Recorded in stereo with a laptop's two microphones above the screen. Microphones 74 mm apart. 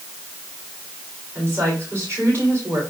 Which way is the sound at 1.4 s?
30° right (ahead or behind).